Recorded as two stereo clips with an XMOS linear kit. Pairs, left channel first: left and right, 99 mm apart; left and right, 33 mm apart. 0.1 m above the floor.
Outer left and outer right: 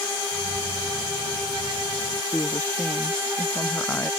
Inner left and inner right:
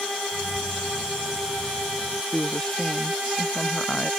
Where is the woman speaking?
20° left (ahead or behind).